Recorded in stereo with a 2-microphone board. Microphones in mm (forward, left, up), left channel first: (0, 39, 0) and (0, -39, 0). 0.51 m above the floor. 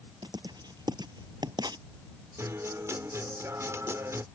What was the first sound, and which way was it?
Writing, 75° right (ahead or behind).